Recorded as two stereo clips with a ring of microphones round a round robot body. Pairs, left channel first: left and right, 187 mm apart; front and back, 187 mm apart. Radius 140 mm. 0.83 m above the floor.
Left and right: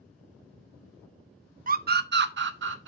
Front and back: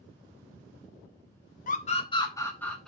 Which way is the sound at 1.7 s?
50° right.